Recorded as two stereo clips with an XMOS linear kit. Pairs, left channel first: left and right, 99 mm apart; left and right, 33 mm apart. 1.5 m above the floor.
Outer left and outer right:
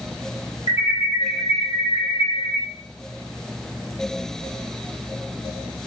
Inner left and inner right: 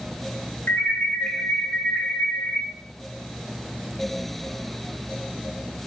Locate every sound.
0.7 s an alarm: 70° left (ahead or behind), 0.9 m